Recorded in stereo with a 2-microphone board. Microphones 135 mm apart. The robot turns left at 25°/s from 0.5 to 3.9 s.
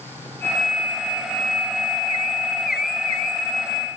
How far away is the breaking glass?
I don't hear breaking glass.